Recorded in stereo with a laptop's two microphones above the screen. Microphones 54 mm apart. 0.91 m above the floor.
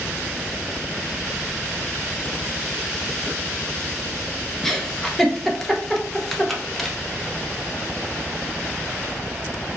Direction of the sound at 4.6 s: 5° left (ahead or behind).